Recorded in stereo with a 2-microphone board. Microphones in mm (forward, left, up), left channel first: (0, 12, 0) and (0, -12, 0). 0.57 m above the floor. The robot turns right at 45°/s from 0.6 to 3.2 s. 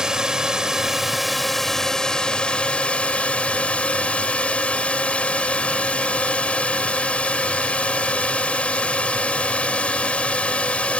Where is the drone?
35° right; by 11.0 s 80° left.